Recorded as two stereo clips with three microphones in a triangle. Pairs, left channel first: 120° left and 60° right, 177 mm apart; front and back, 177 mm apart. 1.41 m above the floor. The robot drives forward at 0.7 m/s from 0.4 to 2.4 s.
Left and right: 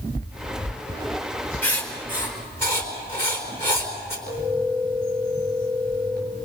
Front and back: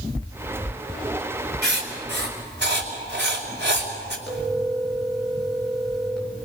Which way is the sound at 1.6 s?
160° right.